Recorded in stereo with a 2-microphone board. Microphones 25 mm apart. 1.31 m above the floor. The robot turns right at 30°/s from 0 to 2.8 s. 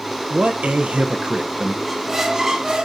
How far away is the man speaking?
About 0.6 m.